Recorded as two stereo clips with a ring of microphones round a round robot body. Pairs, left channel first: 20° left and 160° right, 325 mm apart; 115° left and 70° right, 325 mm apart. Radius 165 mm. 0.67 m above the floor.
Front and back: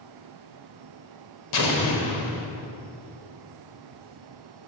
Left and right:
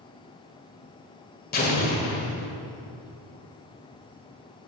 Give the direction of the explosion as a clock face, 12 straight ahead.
10 o'clock.